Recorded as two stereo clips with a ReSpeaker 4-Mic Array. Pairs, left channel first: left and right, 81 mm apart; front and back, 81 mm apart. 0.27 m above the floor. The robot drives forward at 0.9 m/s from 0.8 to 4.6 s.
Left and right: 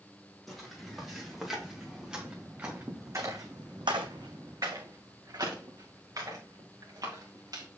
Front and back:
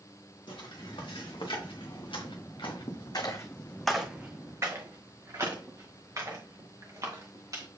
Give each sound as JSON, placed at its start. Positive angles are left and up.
{"t": 0.5, "sound": "footsteps", "azimuth_deg": 0, "distance_m": 4.0}